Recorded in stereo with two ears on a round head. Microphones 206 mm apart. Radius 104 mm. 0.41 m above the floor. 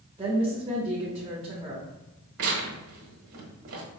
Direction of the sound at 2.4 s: 65° right (ahead or behind).